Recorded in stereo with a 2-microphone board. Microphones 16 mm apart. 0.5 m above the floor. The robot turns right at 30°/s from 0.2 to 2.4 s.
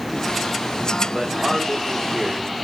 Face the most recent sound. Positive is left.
turn(degrees=-25)